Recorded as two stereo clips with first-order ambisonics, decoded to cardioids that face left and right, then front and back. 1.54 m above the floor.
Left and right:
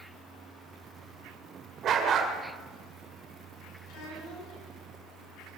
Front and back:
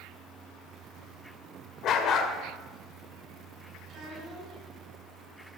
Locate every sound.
1.8 s a dog barking: 40° right, 1.9 m
3.9 s a child speaking: 120° left, 9 m